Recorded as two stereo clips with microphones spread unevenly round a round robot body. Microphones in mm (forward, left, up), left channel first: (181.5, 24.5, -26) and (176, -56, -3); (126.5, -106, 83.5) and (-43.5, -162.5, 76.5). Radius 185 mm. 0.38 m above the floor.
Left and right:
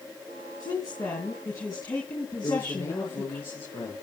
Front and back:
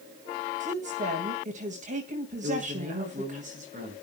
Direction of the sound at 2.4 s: 140° left.